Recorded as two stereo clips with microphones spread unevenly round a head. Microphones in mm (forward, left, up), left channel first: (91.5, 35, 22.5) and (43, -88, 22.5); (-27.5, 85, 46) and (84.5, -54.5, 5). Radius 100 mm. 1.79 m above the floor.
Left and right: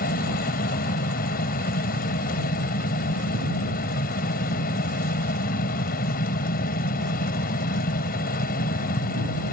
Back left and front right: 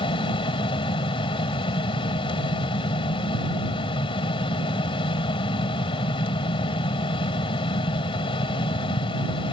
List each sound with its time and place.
0.0 s a fan: 65° left